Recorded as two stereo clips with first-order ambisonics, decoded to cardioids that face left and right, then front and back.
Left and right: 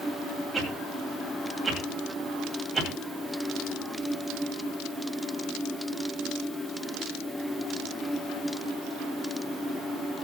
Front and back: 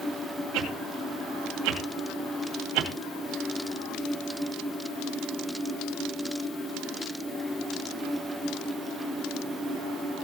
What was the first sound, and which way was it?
A whoosh, 170° right.